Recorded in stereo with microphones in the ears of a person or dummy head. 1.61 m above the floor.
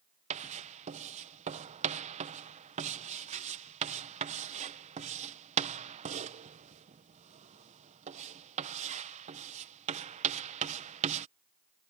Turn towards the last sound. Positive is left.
turn(degrees=-35)  # may be behind; listen again after turning